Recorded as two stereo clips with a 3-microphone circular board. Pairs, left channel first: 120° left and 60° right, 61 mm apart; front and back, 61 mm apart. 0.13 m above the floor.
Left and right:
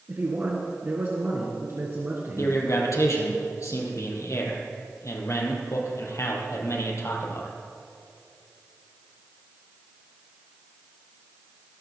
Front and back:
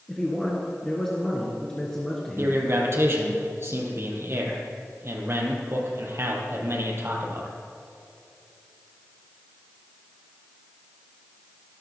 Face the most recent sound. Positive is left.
turn(degrees=145)